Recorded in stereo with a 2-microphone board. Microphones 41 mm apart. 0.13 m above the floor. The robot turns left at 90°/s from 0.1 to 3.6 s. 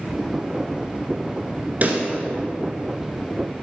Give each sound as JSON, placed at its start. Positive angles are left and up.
{"t": 1.8, "sound": "a pop", "side_deg": -40, "distance_m": 1.4}